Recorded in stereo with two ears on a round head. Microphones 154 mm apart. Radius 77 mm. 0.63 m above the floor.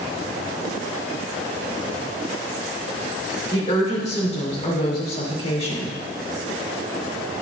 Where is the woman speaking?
40° left (ahead or behind), 2.0 m.